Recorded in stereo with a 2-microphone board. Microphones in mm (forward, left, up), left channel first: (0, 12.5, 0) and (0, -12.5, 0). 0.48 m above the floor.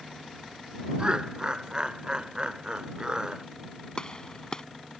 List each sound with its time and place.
1.0 s laughter: 35° right (ahead or behind)
4.0 s a gunshot: 35° left (ahead or behind)